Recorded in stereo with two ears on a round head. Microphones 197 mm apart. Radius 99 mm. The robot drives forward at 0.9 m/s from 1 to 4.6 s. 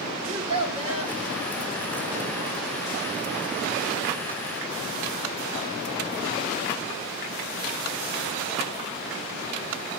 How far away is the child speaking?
About 1.1 m.